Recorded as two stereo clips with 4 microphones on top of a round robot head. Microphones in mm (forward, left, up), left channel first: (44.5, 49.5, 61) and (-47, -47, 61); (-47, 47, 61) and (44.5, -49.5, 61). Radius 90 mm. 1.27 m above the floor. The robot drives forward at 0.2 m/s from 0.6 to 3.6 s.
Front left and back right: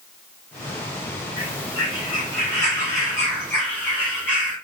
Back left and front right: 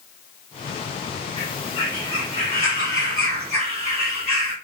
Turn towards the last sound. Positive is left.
turn(degrees=125)